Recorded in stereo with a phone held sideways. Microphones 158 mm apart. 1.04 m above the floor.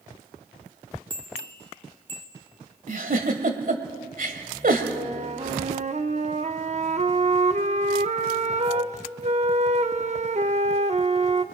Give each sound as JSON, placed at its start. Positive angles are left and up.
{"t": 1.1, "sound": "a bell", "side_deg": -35, "distance_m": 2.5}
{"t": 2.9, "sound": "a giggle", "side_deg": -60, "distance_m": 1.5}
{"t": 4.9, "sound": "a flute", "side_deg": -45, "distance_m": 0.7}